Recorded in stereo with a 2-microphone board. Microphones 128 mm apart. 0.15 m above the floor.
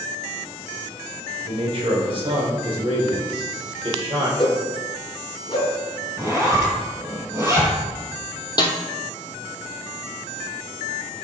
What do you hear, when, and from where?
1.4 s a man speaking: 45° right (ahead or behind), 2 m; by 4.3 s 40° right (ahead or behind), 3.5 m
4.4 s a whoosh: 40° left (ahead or behind), 1.7 m
6.2 s a zipper: 20° right (ahead or behind), 2 m
8.6 s a snare drum: 35° left (ahead or behind), 1.2 m